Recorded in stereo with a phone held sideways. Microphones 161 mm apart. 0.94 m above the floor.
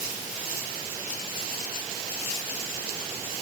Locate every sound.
Only background noise.